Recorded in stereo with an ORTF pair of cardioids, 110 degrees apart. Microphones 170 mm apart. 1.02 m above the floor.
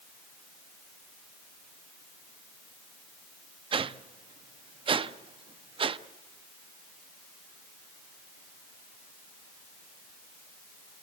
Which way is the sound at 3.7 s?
30° right.